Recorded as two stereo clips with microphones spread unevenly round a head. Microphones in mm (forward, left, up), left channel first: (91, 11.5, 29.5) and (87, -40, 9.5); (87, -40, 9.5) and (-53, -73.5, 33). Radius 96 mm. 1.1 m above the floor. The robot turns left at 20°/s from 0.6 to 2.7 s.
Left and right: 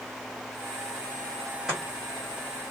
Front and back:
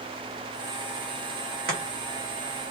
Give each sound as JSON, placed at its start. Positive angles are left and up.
{"t": 1.7, "sound": "chopping", "azimuth_deg": -165, "distance_m": 1.4}